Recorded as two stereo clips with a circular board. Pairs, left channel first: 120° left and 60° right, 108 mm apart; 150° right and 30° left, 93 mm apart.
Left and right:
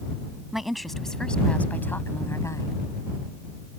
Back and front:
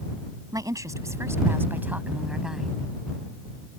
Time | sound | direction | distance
0.5 | a woman speaking | 25° left | ?